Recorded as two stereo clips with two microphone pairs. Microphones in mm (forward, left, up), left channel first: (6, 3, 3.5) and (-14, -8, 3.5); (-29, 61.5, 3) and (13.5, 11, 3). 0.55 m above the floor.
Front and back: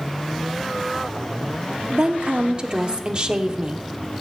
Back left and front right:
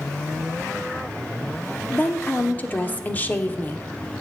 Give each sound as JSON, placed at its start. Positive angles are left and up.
{"t": 1.9, "sound": "a woman speaking", "azimuth_deg": 180, "distance_m": 1.0}